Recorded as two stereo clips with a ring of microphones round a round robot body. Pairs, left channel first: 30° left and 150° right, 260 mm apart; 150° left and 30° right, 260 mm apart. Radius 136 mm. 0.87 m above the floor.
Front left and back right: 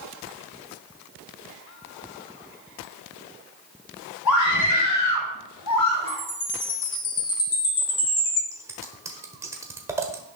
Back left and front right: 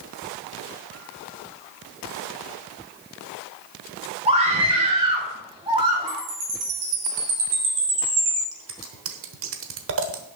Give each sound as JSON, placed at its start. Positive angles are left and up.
{"t": 4.2, "sound": "a scream", "azimuth_deg": 35, "distance_m": 4.5}
{"t": 6.1, "sound": "a chime", "azimuth_deg": -30, "distance_m": 3.0}
{"t": 8.5, "sound": "scissors", "azimuth_deg": -70, "distance_m": 1.2}